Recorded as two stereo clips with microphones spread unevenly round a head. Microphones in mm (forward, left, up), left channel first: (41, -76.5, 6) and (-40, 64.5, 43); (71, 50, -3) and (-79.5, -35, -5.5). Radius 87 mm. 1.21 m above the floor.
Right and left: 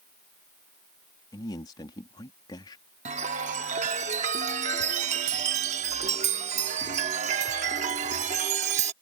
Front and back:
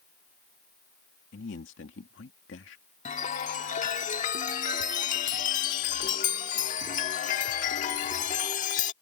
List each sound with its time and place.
1.3 s a man speaking: 5° left
3.0 s a chime: 75° left